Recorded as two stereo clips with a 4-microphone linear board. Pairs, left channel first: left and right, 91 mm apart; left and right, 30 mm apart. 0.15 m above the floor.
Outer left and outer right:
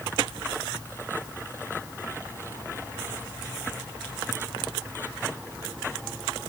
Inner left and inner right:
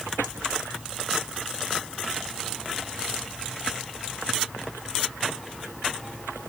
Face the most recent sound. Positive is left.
No sound to turn to.